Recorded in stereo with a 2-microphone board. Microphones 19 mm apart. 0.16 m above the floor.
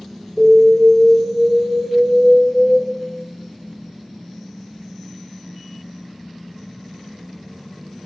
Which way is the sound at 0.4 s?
45° right (ahead or behind).